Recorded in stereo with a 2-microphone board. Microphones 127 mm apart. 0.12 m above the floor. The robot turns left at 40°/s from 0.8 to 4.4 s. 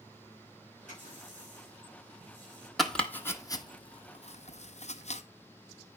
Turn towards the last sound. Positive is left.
turn(degrees=65)  # may be behind; listen again after turning